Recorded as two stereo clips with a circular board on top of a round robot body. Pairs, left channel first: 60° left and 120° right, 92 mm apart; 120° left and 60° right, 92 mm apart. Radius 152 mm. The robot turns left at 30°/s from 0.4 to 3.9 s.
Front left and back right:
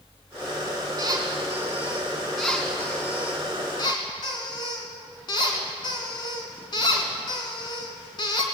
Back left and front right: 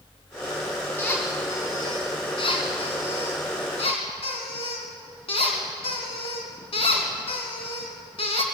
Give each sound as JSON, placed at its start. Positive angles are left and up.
{"t": 1.0, "sound": "a squeak", "azimuth_deg": -170, "distance_m": 2.5}